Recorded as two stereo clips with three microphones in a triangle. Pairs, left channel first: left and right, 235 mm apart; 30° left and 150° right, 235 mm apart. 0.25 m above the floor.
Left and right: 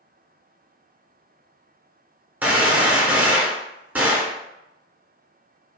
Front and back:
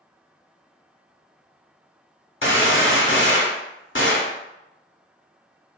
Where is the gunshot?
10° right, 0.7 m.